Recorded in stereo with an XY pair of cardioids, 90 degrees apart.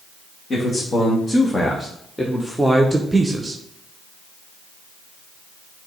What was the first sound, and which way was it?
A man speaking, 45° left.